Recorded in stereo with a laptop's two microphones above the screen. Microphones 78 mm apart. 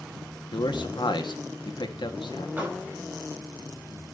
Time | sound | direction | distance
0.5 | a man speaking | 75° left (ahead or behind) | 1.8 m
2.6 | a door slam | 20° right (ahead or behind) | 5 m